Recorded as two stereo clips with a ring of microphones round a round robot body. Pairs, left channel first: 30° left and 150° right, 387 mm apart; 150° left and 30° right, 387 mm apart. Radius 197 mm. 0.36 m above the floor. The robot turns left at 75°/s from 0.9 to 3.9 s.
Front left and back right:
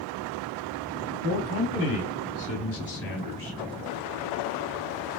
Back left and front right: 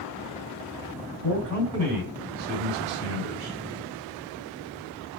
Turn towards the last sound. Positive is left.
turn(degrees=-90)